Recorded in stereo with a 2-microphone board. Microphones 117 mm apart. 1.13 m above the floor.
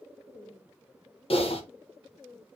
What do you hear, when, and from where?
1.3 s typing on a keyboard: 55° left (ahead or behind), 0.8 m